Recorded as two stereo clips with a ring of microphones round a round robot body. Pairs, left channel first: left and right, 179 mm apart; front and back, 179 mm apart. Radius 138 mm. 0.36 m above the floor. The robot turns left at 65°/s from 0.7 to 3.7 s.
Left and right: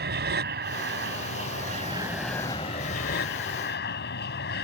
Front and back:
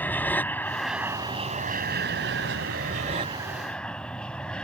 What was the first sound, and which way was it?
An aircraft, 80° right.